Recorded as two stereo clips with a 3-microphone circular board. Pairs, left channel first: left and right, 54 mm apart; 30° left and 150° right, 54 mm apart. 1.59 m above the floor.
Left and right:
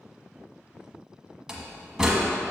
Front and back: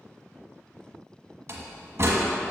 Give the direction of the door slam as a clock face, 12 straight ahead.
5 o'clock.